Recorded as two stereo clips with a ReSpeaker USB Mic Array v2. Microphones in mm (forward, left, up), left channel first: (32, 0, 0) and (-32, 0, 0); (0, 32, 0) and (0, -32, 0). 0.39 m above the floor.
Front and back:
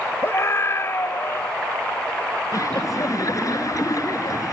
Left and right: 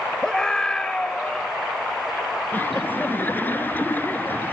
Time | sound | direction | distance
0.2 | a scream | 15° left | ?
2.5 | laughter | 30° left | ?